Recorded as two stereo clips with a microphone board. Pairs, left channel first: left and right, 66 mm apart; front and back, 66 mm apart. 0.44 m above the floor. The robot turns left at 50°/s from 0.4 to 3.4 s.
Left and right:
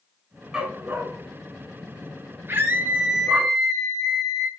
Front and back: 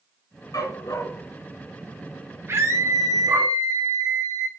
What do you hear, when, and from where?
0.5 s a dog barking: 10° right, 1.5 m; by 3.5 s 155° right, 1.5 m
2.5 s a scream: 130° right, 3 m; by 4.5 s 175° right, 3 m